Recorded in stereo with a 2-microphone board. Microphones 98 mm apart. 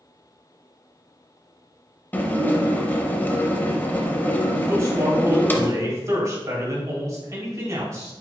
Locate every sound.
2.1 s dishes clattering: 20° left (ahead or behind), 0.6 m
4.7 s a man speaking: 35° right (ahead or behind), 2.0 m